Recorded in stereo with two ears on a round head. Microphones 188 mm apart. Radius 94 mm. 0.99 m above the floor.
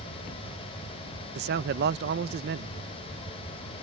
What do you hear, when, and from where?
1.4 s a man speaking: 50° right (ahead or behind)